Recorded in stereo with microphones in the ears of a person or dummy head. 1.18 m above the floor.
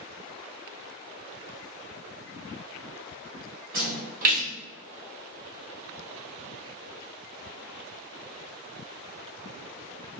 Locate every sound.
3.7 s a splash: 50° right (ahead or behind), 1.8 m